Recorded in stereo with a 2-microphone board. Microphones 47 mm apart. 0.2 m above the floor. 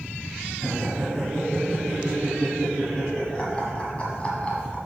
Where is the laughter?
5° left (ahead or behind), 2.5 m; by 4.8 s 25° left (ahead or behind), 1.6 m.